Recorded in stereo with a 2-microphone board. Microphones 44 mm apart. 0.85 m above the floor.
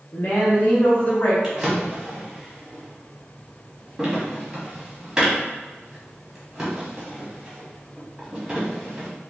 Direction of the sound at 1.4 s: 15° right (ahead or behind).